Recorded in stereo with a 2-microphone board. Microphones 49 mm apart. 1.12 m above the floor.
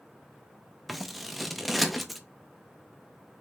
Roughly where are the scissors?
Centre.